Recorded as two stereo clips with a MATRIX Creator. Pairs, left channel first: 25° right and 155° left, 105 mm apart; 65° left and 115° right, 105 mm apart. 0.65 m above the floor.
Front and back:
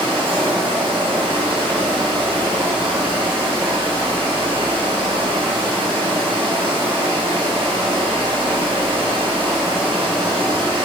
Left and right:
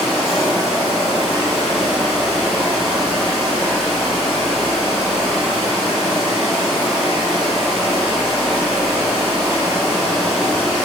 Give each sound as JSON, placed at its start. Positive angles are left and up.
{"t": 0.0, "sound": "running water", "azimuth_deg": 160, "distance_m": 0.9}